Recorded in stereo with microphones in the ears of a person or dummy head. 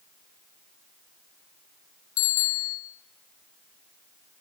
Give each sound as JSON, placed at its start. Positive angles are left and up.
{"t": 2.2, "sound": "a bicycle bell", "side_deg": 80, "distance_m": 3.0}